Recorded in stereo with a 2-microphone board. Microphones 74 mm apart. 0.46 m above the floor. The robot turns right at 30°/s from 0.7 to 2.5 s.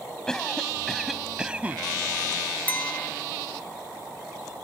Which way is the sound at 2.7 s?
25° left (ahead or behind).